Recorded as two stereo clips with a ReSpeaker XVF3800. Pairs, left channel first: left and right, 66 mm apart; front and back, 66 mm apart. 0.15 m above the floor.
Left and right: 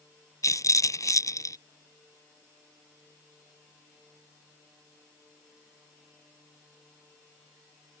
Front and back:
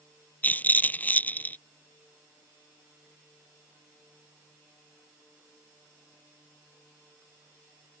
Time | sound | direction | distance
0.4 | a rattle | 65° left | ?